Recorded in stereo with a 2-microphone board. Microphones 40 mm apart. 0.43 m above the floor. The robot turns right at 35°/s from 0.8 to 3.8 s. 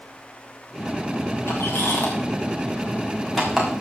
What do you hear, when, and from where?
1.5 s a squeak: 65° left (ahead or behind), 3.5 m; by 3.7 s 10° right (ahead or behind), 3.5 m